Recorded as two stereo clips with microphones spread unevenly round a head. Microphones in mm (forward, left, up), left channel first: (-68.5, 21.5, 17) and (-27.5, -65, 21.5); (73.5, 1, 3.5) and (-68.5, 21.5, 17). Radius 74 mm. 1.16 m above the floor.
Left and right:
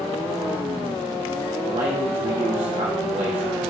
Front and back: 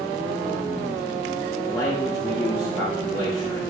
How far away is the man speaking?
About 1.9 m.